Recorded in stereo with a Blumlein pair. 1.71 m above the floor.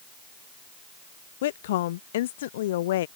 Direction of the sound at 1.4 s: 55° left.